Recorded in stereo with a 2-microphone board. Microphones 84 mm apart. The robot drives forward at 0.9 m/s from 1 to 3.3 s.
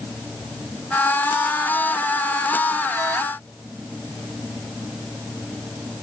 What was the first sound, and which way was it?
Only background noise.